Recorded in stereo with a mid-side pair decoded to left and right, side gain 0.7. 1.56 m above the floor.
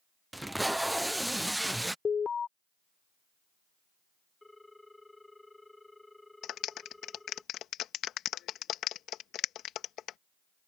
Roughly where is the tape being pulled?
Ahead.